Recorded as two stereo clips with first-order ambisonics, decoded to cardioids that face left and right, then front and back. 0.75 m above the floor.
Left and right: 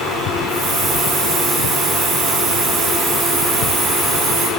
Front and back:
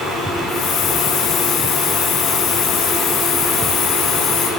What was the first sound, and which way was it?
A hiss, 30° right.